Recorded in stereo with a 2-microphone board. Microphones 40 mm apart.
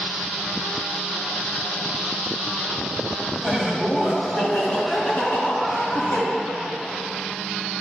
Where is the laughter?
10° right (ahead or behind), 1.9 m; by 6.2 s 40° left (ahead or behind), 3 m.